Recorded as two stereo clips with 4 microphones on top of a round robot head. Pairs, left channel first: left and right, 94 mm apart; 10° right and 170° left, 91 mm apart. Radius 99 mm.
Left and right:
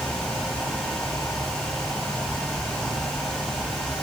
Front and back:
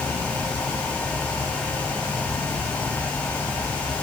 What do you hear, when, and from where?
Only background noise.